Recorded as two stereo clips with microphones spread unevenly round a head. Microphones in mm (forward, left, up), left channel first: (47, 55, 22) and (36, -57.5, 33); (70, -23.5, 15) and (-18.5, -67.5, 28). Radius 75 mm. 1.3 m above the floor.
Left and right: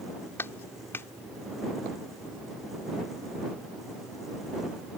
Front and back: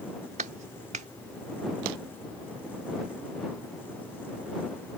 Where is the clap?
160° left.